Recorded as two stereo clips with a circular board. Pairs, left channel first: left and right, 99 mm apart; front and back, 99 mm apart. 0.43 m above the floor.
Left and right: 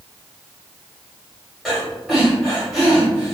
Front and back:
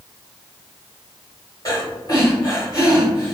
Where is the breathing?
5° left, 1.7 m.